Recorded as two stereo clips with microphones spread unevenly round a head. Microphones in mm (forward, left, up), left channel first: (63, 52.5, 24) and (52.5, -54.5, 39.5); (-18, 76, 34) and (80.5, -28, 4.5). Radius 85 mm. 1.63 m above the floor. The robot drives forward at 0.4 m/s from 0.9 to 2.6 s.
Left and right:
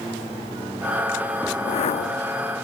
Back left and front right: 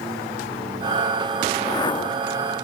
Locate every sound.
1.5 s a whoosh: 65° left, 0.8 m; by 2.3 s 90° left, 0.7 m